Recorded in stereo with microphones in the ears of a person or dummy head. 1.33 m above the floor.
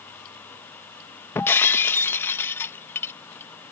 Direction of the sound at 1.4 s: 15° left (ahead or behind).